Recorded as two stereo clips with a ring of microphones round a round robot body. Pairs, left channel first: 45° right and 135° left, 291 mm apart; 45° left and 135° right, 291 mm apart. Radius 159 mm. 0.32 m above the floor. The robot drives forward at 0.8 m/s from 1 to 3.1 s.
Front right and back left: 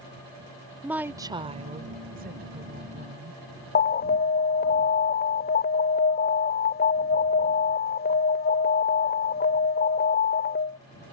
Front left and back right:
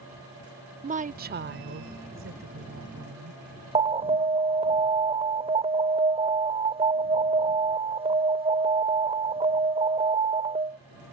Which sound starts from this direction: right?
An alarm, at 3.8 s.